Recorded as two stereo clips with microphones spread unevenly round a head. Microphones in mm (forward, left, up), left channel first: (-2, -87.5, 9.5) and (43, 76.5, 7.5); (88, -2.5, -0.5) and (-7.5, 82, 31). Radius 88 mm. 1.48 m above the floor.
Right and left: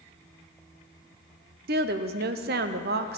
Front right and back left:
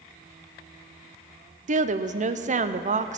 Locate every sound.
1.7 s a woman speaking: 105° left, 0.6 m